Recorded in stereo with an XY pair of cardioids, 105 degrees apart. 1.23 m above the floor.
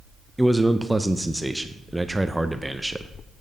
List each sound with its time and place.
0.4 s a man speaking: 5° right, 0.6 m